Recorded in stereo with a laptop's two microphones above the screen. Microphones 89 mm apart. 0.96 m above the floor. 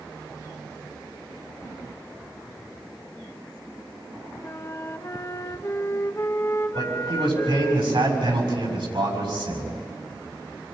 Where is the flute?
35° left (ahead or behind), 1.0 m.